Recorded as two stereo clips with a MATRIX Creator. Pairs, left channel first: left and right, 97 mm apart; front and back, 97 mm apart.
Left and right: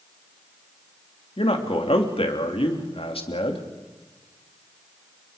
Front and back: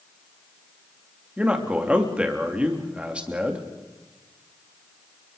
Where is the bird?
I don't hear a bird.